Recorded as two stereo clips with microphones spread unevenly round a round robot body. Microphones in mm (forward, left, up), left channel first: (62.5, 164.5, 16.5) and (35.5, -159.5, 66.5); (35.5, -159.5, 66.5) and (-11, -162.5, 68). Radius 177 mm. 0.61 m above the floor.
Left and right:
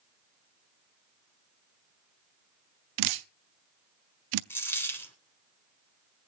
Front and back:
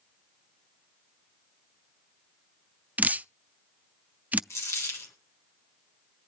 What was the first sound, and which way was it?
Dripping, 115° right.